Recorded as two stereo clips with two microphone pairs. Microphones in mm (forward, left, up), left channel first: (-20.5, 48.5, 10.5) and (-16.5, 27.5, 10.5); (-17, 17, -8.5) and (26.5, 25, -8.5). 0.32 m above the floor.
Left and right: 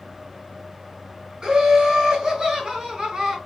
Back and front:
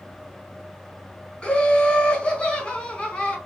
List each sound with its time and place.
1.4 s laughter: 110° right, 2 m